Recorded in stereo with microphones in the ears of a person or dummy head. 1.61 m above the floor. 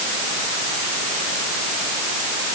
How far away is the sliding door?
I don't hear a sliding door.